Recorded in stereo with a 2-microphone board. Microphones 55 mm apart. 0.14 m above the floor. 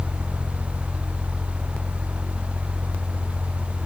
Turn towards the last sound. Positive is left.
No sound to turn to.